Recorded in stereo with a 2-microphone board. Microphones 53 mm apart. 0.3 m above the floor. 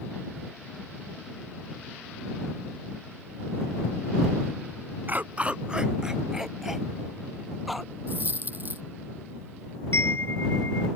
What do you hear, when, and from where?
5.1 s a dog barking: 40° right (ahead or behind); by 7.9 s centre (ahead or behind)
8.1 s a dropped coin: 40° right (ahead or behind)
9.9 s a chime: 65° left (ahead or behind)